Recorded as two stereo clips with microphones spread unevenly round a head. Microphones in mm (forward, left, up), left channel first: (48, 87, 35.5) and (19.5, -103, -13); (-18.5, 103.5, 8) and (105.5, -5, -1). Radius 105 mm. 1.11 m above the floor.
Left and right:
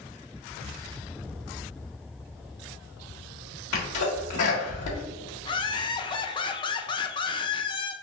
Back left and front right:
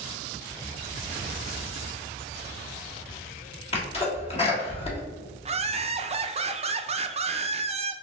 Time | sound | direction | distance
3.7 | a sneeze | 85° left | 1.5 m
5.5 | laughter | 15° left | 0.5 m